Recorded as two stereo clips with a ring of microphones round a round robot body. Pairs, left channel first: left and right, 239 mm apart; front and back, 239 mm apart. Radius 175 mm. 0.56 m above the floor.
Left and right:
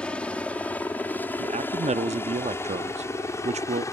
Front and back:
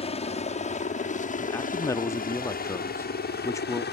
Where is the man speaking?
65° right.